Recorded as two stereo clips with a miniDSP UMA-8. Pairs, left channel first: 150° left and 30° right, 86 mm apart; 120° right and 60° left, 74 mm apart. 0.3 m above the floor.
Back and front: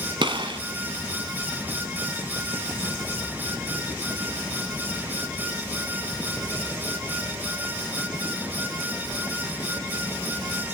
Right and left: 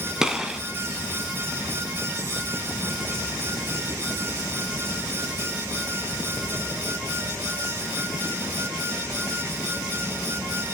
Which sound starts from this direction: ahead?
A gunshot, at 0.2 s.